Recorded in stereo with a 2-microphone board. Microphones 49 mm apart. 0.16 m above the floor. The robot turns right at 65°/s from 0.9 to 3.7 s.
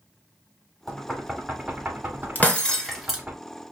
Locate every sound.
0.9 s knocking: 10° left (ahead or behind), 1.1 m; by 3.4 s 20° right (ahead or behind), 1.1 m
2.4 s breaking glass: 35° left (ahead or behind), 1.3 m; by 3.2 s 10° right (ahead or behind), 1.3 m